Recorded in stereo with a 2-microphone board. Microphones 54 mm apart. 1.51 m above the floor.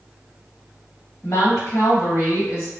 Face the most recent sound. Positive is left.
turn(degrees=60)  # may be behind; listen again after turning